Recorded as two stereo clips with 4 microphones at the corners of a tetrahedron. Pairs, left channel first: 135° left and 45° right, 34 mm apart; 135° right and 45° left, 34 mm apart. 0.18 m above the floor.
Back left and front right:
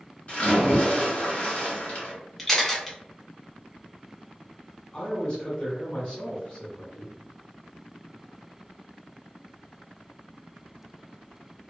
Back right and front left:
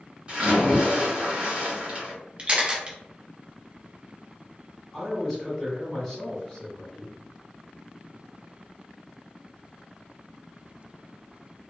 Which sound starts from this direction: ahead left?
A camera shutter, at 2.4 s.